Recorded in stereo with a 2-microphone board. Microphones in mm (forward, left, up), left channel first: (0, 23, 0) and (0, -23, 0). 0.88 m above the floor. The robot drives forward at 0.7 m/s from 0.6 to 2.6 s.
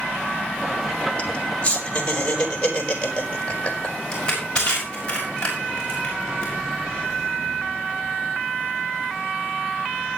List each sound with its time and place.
1.2 s laughter: 30° left (ahead or behind), 3 m; by 3.9 s 20° left (ahead or behind), 4 m
4.1 s crushing: 20° left (ahead or behind), 6.5 m